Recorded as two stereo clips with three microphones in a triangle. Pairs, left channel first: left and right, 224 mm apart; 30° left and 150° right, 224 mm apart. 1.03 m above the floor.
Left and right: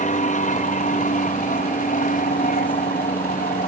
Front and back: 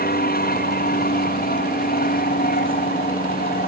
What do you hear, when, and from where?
0.0 s an aircraft: 50° left; by 3.7 s 55° left